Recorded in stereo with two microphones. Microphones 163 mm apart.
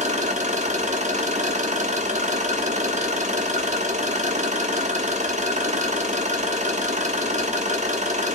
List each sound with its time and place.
0.0 s an engine running: 45° right (ahead or behind), 0.7 m